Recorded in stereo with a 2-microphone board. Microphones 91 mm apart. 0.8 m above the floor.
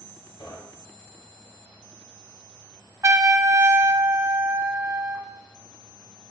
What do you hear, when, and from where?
0.4 s knocking: 80° left, 2.5 m
3.0 s a trumpet: 35° right (ahead or behind), 0.5 m